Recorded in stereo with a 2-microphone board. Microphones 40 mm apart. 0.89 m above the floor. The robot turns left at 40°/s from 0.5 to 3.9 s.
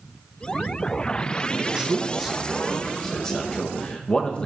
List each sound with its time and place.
1.6 s a man speaking: 20° right (ahead or behind), 0.8 m; by 4.5 s 25° left (ahead or behind), 0.8 m